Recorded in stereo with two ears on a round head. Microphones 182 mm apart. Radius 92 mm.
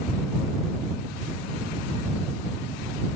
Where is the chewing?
No chewing in this recording.